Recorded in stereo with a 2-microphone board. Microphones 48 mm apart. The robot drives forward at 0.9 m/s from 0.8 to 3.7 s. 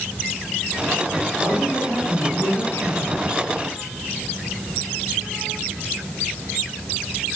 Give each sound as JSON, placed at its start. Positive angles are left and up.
{"t": 1.4, "sound": "a man speaking", "side_deg": 70, "distance_m": 8.5}